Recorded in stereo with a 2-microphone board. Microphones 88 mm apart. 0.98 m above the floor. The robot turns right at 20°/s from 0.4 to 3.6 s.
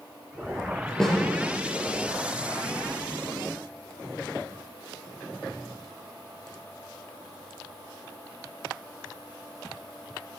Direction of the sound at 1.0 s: 5° left (ahead or behind).